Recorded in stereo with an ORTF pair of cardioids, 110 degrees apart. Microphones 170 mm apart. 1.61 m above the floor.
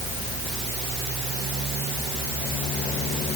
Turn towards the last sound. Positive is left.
No sound to turn to.